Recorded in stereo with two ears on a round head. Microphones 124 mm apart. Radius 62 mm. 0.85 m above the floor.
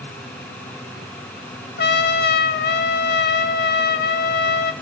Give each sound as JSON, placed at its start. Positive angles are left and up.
{"t": 1.8, "sound": "a trumpet", "side_deg": 75, "distance_m": 0.6}